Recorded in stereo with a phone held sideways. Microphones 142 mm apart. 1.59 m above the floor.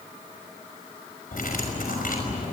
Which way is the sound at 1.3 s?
80° left.